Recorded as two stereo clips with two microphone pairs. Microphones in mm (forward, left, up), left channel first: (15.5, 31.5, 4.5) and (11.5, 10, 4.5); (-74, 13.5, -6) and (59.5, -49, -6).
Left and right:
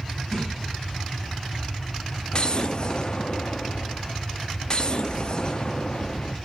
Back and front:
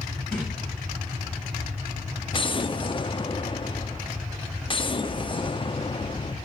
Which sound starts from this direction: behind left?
An explosion, at 2.3 s.